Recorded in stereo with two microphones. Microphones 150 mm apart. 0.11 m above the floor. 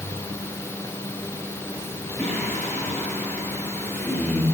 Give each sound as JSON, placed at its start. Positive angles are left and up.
{"t": 2.2, "sound": "singing", "side_deg": 5, "distance_m": 10.0}